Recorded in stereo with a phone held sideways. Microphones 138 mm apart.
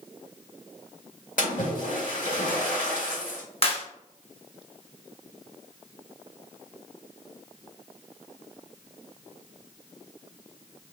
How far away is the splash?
About 1.7 m.